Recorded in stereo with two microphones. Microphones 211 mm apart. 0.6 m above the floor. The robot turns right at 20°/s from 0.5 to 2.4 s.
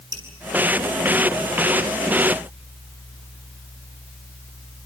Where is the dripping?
75° right (ahead or behind), 8 m.